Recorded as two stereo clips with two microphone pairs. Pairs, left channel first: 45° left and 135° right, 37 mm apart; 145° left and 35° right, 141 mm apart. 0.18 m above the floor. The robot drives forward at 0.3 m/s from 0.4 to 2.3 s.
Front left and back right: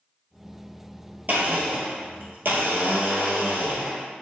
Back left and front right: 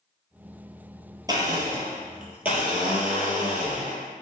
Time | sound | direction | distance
1.3 | a blender | 100° right | 0.9 m